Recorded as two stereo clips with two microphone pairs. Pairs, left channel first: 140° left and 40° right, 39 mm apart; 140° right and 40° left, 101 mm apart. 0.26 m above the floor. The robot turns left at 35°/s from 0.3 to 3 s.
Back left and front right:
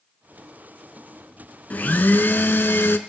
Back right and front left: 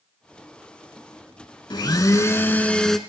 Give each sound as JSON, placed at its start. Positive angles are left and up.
{"t": 1.7, "sound": "a blender", "azimuth_deg": -175, "distance_m": 0.7}